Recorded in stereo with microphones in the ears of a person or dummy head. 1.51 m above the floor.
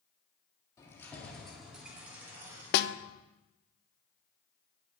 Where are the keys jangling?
15° left (ahead or behind), 2 m; by 3.0 s 25° right (ahead or behind), 3 m.